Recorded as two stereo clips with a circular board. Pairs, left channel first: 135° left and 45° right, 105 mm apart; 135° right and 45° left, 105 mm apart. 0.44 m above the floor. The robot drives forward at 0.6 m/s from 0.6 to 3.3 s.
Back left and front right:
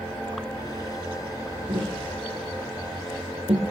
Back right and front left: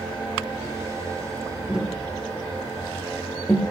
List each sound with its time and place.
1.7 s tapping: 35° right, 3 m; by 3.6 s 50° right, 2 m